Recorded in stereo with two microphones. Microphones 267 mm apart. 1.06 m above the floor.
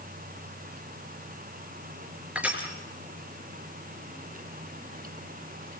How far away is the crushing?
About 4.5 m.